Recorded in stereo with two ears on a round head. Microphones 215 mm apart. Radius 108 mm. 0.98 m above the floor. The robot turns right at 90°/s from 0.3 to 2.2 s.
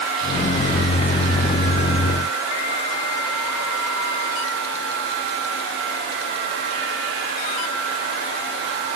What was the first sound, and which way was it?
Only background noise.